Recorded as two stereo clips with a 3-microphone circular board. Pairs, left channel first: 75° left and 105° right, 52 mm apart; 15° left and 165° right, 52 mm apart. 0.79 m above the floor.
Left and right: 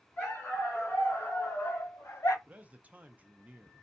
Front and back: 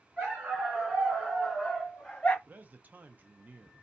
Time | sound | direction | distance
0.2 | a dog barking | 130° left | 3 m
2.5 | a man speaking | 145° right | 0.6 m